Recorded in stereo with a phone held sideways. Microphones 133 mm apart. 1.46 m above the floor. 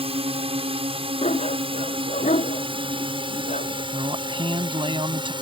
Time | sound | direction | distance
0.0 | a drone | 45° right (ahead or behind) | ?
1.2 | a dog barking | 60° left (ahead or behind) | ?
3.9 | a man speaking | 40° right (ahead or behind) | ?